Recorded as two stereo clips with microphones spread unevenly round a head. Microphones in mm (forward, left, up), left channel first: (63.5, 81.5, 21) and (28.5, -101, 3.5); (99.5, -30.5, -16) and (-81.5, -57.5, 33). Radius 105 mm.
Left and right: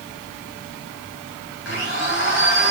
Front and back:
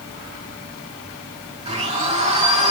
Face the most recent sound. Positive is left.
turn(degrees=120)